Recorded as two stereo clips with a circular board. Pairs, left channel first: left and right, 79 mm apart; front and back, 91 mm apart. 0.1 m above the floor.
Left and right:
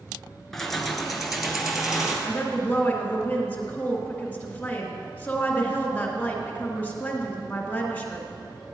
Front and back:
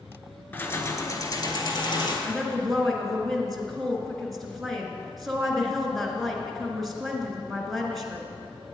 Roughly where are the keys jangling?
Ahead.